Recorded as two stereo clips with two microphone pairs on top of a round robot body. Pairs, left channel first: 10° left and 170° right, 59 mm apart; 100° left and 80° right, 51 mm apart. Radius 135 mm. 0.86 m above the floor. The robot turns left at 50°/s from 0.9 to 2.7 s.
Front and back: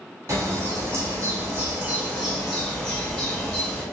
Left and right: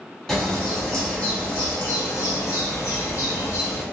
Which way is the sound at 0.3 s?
175° right.